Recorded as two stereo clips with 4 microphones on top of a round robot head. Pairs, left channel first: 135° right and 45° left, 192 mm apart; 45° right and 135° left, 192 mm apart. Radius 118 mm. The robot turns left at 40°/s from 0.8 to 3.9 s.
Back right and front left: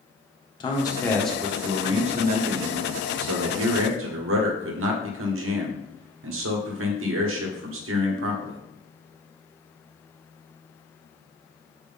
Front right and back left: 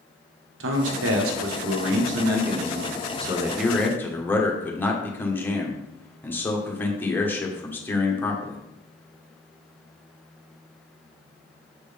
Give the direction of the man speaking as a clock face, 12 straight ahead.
7 o'clock.